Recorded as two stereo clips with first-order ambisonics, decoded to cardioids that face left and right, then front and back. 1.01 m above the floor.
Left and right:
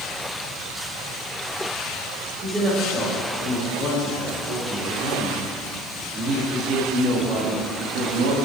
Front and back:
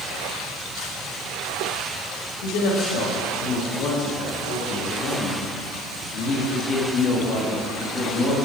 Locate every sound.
2.4 s a woman speaking: 20° right, 4 m; by 8.3 s 70° right, 1.9 m